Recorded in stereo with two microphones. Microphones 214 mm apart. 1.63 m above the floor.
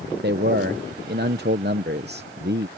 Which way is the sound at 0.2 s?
50° right (ahead or behind).